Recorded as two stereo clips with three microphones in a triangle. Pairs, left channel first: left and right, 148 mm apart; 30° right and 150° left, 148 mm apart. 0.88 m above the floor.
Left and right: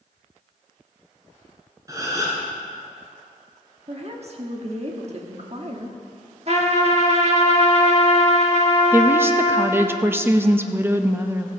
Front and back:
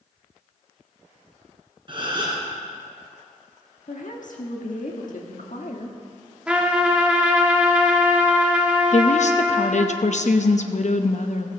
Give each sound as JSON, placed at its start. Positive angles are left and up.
{"t": 1.9, "sound": "a gasp", "azimuth_deg": -155, "distance_m": 3.0}
{"t": 3.9, "sound": "a woman speaking", "azimuth_deg": -50, "distance_m": 1.4}
{"t": 6.5, "sound": "a trumpet", "azimuth_deg": -125, "distance_m": 1.3}
{"t": 8.9, "sound": "a woman speaking", "azimuth_deg": -20, "distance_m": 0.8}